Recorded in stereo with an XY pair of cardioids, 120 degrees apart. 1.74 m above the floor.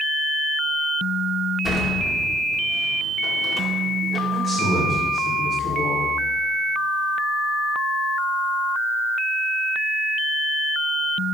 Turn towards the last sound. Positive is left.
turn(degrees=-25)